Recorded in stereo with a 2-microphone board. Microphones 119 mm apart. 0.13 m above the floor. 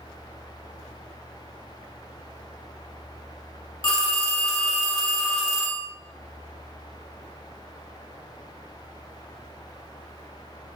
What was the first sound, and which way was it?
A phone ringing, 40° left (ahead or behind).